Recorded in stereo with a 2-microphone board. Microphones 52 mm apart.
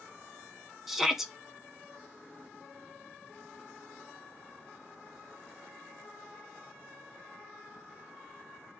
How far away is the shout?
About 0.5 m.